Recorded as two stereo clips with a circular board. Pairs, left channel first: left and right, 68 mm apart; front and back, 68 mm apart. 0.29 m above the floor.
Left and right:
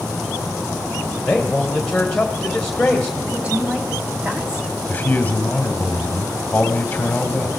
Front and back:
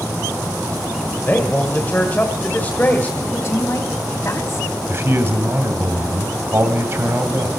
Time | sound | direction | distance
1.2 | a man speaking | 20° left | 1.5 m
3.3 | a woman speaking | 25° right | 1.7 m
4.9 | a man speaking | 150° left | 1.6 m